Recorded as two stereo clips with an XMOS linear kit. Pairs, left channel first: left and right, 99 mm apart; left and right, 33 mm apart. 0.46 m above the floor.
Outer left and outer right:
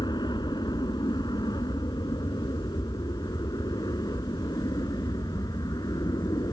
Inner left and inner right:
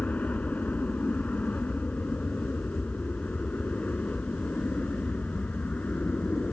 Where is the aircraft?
45° left (ahead or behind); by 6.5 s 40° left (ahead or behind).